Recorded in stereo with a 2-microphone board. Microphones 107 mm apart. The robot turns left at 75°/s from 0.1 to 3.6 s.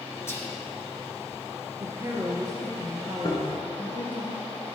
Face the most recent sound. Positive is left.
turn(degrees=35)  # may be behind; listen again after turning